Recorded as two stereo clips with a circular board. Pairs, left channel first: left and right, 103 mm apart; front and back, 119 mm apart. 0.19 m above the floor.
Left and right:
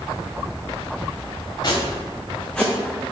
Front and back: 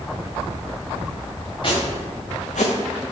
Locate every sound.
1.6 s footsteps: 45° left, 1.2 m; by 2.7 s straight ahead, 0.8 m